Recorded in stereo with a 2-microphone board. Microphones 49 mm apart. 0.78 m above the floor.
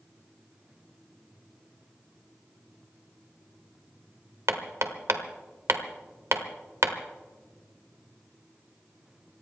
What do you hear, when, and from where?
4.5 s hammering: 75° right (ahead or behind), 1.3 m